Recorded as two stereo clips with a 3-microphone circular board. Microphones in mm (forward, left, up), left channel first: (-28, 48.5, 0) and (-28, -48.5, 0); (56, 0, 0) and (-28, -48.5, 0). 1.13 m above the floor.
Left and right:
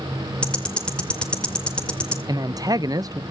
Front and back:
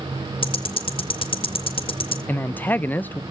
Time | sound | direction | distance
0.4 | ticking | 10° left | 1.8 m
2.3 | a man speaking | 40° right | 0.7 m